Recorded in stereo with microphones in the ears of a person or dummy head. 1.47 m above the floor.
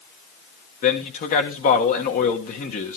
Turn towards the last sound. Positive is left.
turn(degrees=45)  # may be behind; listen again after turning